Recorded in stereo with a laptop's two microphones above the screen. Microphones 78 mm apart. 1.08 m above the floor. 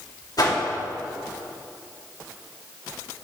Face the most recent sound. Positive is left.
turn(degrees=55)  # may be behind; listen again after turning